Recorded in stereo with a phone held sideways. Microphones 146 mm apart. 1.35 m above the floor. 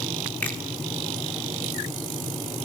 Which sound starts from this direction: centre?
A finger snap, at 0.4 s.